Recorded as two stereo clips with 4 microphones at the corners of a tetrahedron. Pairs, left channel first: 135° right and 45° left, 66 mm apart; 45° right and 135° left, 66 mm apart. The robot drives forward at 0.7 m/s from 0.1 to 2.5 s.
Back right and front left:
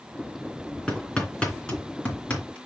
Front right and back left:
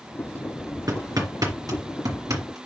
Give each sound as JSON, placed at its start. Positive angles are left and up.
{"t": 0.9, "sound": "hammering", "azimuth_deg": 145, "distance_m": 3.0}